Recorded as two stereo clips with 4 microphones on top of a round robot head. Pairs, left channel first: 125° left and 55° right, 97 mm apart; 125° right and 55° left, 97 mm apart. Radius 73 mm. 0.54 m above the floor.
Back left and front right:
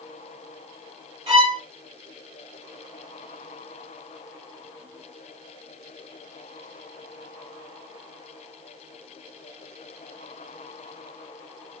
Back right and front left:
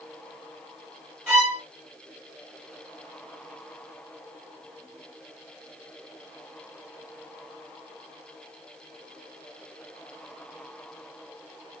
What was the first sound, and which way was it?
A violin, 25° right.